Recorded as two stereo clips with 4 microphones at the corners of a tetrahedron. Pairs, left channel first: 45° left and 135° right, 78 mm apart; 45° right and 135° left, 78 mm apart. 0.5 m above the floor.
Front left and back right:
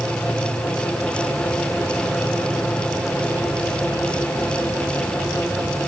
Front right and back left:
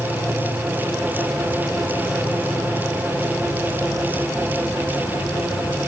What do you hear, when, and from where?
0.0 s an insect: 15° right, 3 m